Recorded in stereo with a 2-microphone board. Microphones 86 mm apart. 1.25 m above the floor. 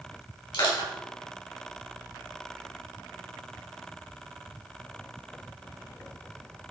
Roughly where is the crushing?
Left.